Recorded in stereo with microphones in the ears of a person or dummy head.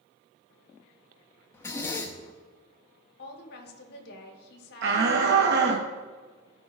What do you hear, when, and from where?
1.5 s a zipper: 15° left (ahead or behind), 0.7 m
3.2 s a woman speaking: 55° left (ahead or behind), 1.3 m
4.8 s a shout: 65° right (ahead or behind), 0.8 m